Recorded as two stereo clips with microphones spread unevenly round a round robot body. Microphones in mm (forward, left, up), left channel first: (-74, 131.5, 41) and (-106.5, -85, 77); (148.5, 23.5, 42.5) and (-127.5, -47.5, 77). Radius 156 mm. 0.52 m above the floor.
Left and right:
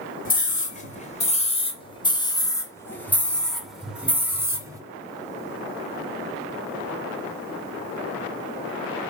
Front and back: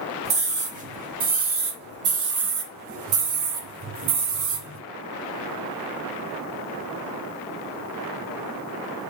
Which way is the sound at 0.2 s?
125° left.